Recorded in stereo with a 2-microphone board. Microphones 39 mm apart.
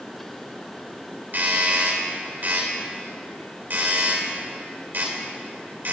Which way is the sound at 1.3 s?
55° right (ahead or behind).